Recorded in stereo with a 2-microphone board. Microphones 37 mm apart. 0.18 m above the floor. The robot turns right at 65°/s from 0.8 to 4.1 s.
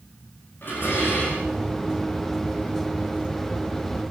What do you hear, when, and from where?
0.6 s dishes clattering: 75° left, 8 m; by 1.5 s 120° left, 8 m